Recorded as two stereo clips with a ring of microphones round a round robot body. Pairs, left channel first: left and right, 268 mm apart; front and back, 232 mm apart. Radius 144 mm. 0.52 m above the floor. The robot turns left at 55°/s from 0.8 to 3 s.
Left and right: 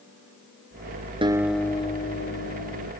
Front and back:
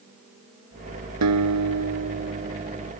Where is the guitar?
165° right; by 2.9 s 105° left.